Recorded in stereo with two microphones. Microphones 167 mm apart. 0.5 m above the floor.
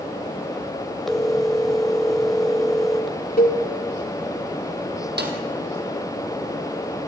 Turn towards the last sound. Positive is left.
turn(degrees=-80)